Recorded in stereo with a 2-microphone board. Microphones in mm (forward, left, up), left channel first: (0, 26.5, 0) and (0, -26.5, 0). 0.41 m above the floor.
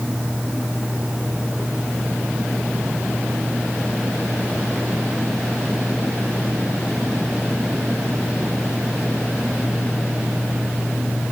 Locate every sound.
Only background noise.